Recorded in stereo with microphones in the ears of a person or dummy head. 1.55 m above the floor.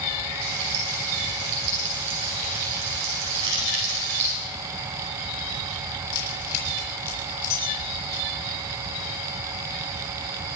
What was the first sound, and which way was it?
Frying, 65° right (ahead or behind).